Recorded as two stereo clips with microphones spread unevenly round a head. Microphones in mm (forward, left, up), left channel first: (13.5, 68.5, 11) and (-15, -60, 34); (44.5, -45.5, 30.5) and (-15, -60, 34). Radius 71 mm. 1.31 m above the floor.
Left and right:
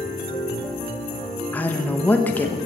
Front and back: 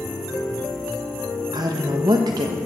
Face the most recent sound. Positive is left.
turn(degrees=155)